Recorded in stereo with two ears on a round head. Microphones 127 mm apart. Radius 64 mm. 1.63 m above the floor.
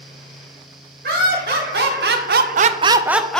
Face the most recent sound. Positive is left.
turn(degrees=5)  # may be behind; listen again after turning